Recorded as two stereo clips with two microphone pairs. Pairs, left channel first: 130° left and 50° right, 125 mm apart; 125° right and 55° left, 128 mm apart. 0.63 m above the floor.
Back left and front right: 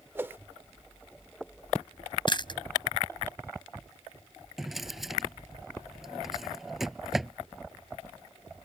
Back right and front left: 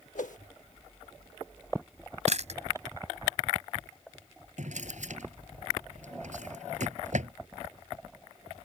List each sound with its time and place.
0.1 s a whoosh: 125° right
2.3 s chewing: 80° left
4.6 s a drawer: 40° left